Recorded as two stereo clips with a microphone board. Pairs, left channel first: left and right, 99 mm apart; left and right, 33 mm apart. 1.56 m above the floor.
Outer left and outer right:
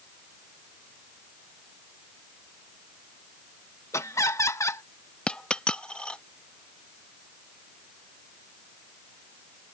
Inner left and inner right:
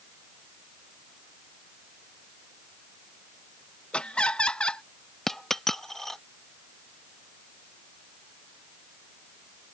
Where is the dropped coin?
10° left (ahead or behind).